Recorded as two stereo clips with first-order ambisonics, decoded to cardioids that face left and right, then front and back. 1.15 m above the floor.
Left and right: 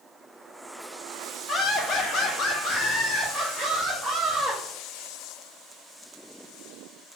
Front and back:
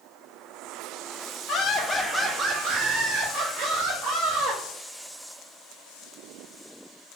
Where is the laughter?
30° left, 0.6 m; by 4.6 s 160° left, 1.6 m.